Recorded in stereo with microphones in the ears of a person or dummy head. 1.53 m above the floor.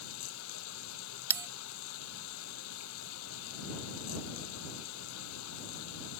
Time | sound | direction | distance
0.0 | running water | 75° left (ahead or behind) | ?
1.3 | a bell | 20° right (ahead or behind) | ?